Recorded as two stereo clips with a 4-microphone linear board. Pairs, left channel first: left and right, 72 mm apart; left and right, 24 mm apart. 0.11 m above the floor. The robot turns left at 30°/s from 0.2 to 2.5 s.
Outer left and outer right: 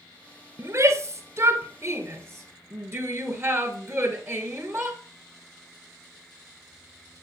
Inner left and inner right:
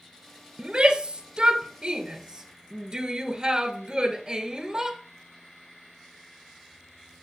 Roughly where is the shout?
Right.